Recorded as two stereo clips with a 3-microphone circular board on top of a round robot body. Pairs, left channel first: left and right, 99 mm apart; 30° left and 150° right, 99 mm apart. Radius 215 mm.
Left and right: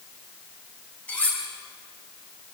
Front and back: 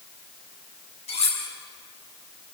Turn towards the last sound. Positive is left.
turn(degrees=15)